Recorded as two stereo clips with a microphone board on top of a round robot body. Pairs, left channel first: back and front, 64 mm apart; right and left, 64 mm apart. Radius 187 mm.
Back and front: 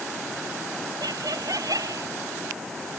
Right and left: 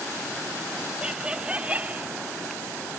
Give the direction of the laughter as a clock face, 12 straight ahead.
12 o'clock.